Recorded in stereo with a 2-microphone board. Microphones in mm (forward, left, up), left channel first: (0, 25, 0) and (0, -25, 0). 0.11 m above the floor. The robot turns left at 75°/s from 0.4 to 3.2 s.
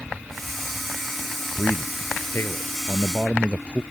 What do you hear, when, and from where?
1.6 s a man speaking: 150° left; by 3.8 s 30° left